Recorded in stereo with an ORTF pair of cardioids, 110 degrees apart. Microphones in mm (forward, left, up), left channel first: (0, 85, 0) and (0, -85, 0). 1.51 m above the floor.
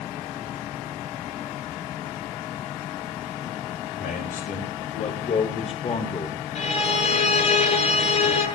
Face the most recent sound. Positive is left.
turn(degrees=45)